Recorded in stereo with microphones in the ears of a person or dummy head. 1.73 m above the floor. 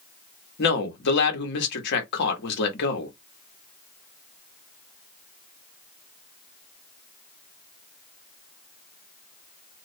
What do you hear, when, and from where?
0.6 s a man speaking: 65° left (ahead or behind), 1.0 m